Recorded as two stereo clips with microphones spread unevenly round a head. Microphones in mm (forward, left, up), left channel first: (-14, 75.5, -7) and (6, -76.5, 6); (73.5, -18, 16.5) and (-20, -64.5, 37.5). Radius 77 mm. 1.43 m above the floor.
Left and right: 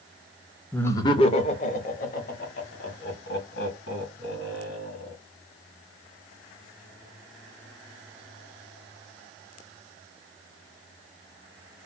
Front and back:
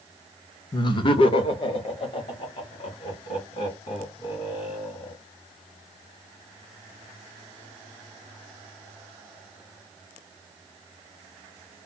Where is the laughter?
20° left, 0.5 m; by 5.2 s 70° left, 3.5 m.